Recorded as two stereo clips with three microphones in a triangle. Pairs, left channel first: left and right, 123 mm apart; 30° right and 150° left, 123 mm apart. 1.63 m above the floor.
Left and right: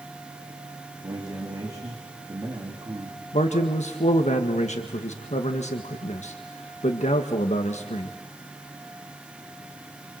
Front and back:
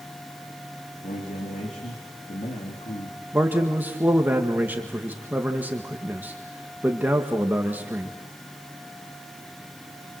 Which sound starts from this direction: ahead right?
A man speaking, at 1.0 s.